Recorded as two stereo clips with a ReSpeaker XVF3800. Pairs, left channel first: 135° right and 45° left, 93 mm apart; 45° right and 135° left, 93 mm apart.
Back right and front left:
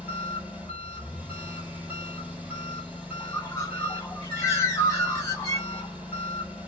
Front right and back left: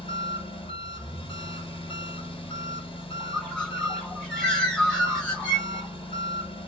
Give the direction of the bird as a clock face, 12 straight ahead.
4 o'clock.